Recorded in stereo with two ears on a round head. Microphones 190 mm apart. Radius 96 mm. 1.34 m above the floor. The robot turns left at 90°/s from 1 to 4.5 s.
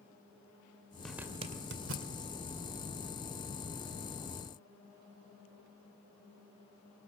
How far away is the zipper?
About 2 m.